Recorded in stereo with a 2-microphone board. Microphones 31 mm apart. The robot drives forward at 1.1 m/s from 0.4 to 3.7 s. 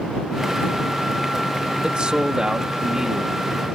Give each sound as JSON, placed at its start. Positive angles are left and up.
{"t": 1.8, "sound": "a man speaking", "side_deg": -35}